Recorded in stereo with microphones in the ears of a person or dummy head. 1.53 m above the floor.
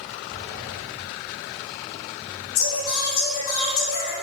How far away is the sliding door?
About 1.7 m.